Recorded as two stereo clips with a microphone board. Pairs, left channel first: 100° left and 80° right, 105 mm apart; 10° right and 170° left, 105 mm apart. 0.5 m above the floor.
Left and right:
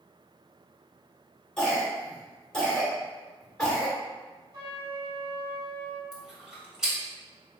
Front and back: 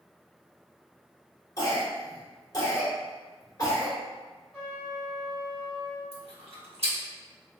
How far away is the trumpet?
About 1.6 m.